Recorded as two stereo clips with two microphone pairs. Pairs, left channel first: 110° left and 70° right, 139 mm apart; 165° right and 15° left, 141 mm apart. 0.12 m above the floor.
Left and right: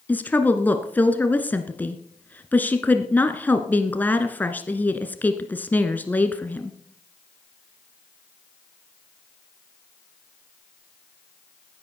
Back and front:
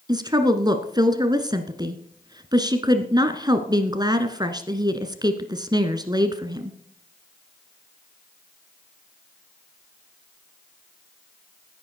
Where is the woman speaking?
40° left, 1.2 m.